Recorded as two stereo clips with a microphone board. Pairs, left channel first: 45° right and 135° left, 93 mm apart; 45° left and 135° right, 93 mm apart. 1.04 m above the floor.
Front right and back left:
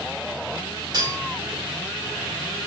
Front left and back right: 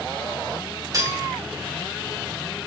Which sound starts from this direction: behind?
Cutlery clinking, at 0.9 s.